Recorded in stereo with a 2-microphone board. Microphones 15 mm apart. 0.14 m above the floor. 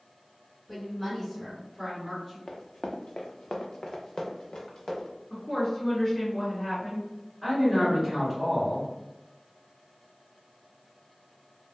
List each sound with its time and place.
0.7 s a woman speaking: 20° left (ahead or behind), 1.6 m; by 2.4 s 15° left (ahead or behind), 2 m
2.5 s running footsteps: 35° left (ahead or behind), 0.6 m; by 5.1 s 45° left (ahead or behind), 1.4 m
5.3 s a woman speaking: 25° left (ahead or behind), 1.6 m
7.4 s a man speaking: centre (ahead or behind), 1.9 m